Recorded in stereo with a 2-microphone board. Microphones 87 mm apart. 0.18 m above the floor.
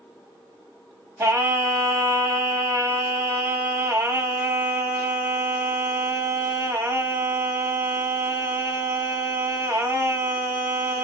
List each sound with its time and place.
1.2 s singing: 30° right (ahead or behind), 1.4 m